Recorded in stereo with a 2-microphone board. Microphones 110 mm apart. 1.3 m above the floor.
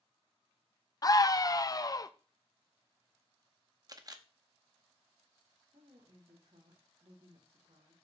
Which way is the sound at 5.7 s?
70° right (ahead or behind).